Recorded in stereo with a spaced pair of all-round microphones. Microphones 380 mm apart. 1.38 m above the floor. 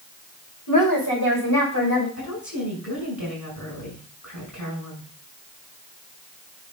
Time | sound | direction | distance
0.7 | a woman speaking | 70° left (ahead or behind) | 5.5 m
2.2 | a woman speaking | 55° left (ahead or behind) | 6 m